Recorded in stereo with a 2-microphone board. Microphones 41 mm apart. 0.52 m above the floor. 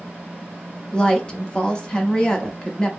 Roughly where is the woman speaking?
Centre.